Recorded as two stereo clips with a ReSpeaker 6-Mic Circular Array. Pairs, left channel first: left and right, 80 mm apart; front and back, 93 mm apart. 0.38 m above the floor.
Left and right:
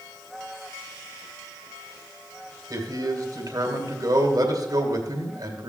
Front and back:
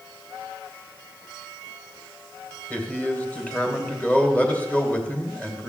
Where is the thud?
No thud in this recording.